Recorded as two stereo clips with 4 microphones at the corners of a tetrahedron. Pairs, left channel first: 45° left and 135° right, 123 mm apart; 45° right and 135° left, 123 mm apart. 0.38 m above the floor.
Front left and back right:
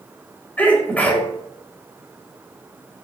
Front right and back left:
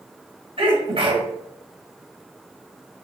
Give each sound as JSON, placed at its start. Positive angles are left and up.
{"t": 0.6, "sound": "a sneeze", "azimuth_deg": 120, "distance_m": 2.0}